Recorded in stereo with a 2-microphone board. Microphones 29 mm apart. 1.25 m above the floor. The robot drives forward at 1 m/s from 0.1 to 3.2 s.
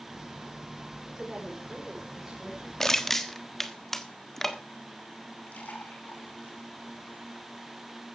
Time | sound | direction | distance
1.2 | a woman speaking | 20° right (ahead or behind) | 4.5 m
2.8 | crushing | 15° left (ahead or behind) | 1.2 m
5.5 | a splash | 75° left (ahead or behind) | 5 m